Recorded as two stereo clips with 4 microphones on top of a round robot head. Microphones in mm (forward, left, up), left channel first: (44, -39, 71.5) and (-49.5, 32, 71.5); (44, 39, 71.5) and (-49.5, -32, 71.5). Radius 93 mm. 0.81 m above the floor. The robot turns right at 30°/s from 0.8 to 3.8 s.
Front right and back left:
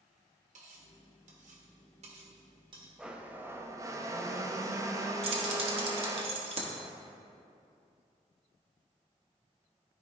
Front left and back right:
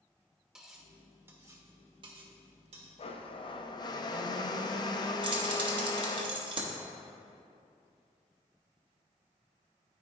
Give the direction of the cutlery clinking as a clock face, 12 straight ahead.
8 o'clock.